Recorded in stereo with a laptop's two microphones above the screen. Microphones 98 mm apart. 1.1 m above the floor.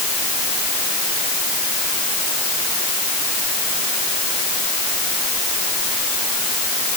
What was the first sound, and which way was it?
Only background noise.